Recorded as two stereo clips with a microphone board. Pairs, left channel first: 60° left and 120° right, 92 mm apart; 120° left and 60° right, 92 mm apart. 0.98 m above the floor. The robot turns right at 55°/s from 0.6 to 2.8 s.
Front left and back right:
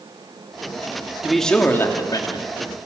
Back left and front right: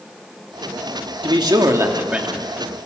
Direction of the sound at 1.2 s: 35° right.